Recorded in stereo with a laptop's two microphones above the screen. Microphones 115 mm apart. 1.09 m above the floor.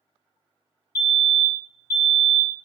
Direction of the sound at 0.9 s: 30° left (ahead or behind).